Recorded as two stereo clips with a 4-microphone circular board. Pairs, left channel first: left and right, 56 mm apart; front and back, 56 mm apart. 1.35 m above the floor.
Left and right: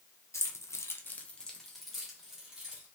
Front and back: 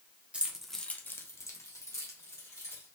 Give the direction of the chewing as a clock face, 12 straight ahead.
I don't hear chewing.